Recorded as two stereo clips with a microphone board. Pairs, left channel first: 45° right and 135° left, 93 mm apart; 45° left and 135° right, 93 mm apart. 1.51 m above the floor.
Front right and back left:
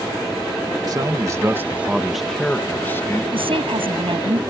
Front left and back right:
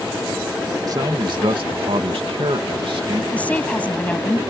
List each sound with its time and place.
0.9 s a man speaking: straight behind; by 3.2 s 105° right
3.3 s a woman speaking: 120° left